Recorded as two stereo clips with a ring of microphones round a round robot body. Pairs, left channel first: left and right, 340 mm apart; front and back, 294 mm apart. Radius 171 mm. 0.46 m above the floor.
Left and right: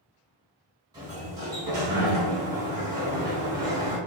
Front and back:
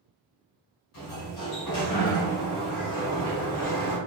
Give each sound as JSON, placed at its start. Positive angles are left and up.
{"t": 0.9, "sound": "a sliding door", "azimuth_deg": -10, "distance_m": 1.2}